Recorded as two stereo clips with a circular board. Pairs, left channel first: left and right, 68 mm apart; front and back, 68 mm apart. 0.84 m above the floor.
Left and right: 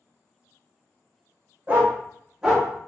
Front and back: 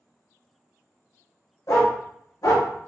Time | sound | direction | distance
1.7 | a dog barking | 30° right | 1.5 m